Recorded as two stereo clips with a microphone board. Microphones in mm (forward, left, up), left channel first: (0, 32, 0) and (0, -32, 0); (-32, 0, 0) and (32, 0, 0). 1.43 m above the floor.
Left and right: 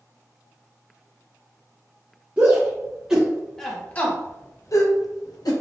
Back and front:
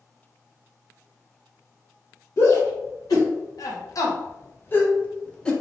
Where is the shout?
155° right, 1.1 m; by 5.5 s 100° left, 1.0 m.